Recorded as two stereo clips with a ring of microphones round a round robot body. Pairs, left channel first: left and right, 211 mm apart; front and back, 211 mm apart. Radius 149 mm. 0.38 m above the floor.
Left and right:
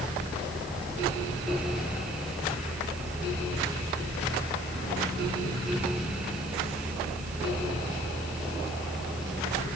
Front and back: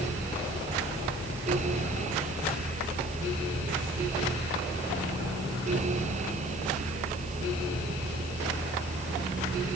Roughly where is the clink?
No clink in this recording.